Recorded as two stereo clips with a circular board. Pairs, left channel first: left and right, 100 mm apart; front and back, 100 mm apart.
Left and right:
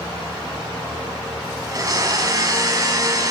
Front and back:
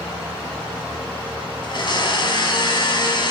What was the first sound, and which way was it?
A blender, 35° right.